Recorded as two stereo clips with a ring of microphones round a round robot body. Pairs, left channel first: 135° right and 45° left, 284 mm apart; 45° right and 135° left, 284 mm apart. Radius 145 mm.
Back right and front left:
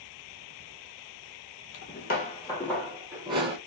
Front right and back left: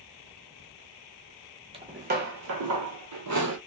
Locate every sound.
1.7 s footsteps: 160° right, 0.7 m; by 3.6 s 115° left, 1.0 m